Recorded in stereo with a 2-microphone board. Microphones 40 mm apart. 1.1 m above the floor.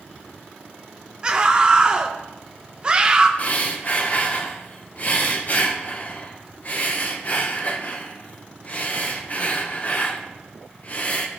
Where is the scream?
25° right (ahead or behind), 0.7 m.